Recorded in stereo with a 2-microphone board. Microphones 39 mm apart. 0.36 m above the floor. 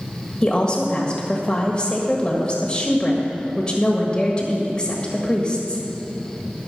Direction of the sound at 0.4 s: 25° left (ahead or behind).